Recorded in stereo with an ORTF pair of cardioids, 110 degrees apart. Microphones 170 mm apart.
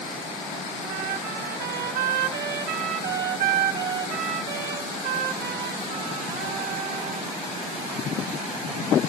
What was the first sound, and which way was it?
A trumpet, 65° right.